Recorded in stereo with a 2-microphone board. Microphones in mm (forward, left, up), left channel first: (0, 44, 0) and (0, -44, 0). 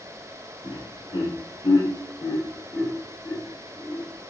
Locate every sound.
0.6 s laughter: 70° left (ahead or behind), 1.4 m; by 4.0 s 10° left (ahead or behind), 1.6 m